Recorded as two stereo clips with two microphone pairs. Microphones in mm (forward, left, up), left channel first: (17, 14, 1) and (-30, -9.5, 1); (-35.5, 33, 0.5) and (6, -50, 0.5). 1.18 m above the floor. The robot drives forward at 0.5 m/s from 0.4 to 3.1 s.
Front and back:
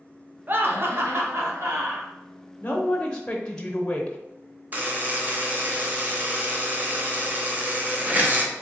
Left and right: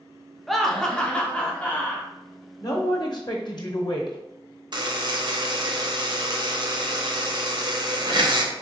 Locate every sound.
0.5 s laughter: 155° right, 0.6 m; by 2.1 s 170° right, 1.3 m
2.6 s a man speaking: 75° left, 0.8 m; by 4.2 s 100° left, 0.7 m
4.7 s a buzzer: 100° right, 0.6 m